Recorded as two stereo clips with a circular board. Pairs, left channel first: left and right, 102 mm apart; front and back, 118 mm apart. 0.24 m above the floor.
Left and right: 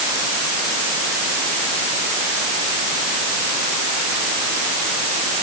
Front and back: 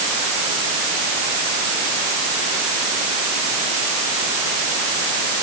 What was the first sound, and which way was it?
Only background noise.